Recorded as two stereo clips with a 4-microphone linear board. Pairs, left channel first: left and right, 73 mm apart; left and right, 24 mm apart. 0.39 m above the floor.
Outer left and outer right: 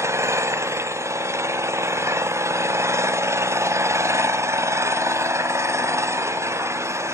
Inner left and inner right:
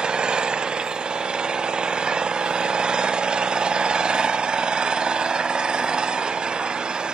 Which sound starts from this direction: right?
An engine running, at 0.0 s.